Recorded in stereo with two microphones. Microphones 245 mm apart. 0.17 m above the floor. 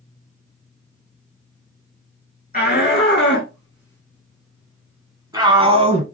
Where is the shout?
30° left (ahead or behind), 2.0 m; by 6.0 s 30° right (ahead or behind), 1.5 m.